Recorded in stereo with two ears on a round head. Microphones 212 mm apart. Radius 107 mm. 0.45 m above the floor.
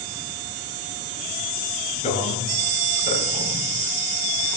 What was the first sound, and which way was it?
A man speaking, 30° left (ahead or behind).